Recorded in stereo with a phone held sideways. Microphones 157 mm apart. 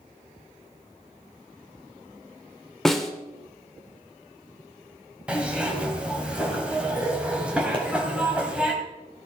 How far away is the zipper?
About 2 m.